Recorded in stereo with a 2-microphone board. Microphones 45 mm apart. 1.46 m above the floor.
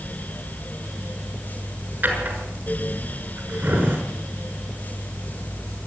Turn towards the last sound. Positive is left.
turn(degrees=-40)  # may be behind; listen again after turning